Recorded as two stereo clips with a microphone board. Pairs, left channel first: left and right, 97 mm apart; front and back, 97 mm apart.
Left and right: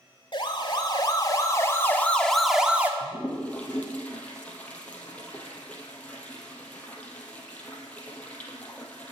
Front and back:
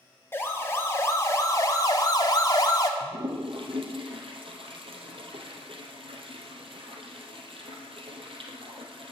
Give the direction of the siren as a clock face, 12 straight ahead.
10 o'clock.